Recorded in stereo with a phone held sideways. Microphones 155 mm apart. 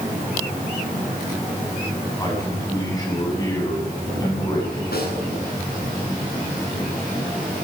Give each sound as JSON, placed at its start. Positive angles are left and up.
{"t": 2.2, "sound": "a man speaking", "side_deg": 25, "distance_m": 8.5}
{"t": 4.9, "sound": "a snare drum", "side_deg": 85, "distance_m": 9.0}